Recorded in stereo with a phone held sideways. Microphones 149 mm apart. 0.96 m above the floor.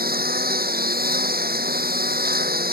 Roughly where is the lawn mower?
Right.